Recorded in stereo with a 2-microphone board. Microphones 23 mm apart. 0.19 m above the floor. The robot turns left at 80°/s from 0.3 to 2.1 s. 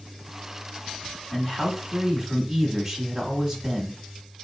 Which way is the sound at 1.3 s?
10° left (ahead or behind).